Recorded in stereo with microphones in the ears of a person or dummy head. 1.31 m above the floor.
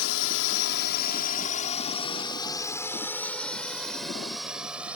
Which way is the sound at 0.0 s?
65° left (ahead or behind).